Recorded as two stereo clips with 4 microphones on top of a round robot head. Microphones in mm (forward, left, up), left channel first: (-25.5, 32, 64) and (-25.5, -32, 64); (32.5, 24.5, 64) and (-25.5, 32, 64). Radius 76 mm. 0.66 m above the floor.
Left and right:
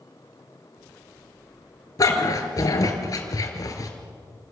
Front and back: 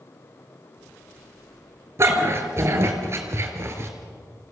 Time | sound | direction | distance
2.0 | a dog barking | 125° left | 3 m